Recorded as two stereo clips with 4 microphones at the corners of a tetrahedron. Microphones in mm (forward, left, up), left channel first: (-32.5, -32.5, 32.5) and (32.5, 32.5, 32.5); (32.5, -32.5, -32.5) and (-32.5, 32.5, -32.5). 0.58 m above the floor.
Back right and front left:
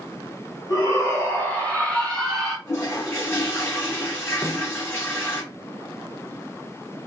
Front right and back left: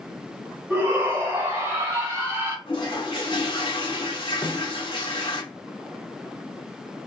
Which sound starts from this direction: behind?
A shout, at 0.7 s.